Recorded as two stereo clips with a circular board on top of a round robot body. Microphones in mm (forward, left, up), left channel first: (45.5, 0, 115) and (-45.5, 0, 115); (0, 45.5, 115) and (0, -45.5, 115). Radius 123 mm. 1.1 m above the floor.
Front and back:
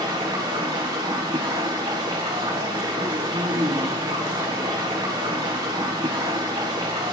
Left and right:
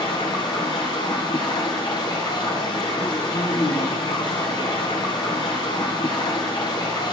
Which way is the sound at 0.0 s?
135° left.